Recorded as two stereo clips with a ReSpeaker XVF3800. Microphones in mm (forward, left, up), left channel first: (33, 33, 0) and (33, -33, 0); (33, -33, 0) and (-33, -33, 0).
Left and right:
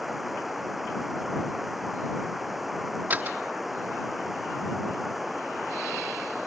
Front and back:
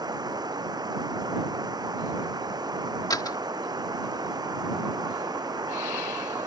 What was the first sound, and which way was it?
Running water, 175° right.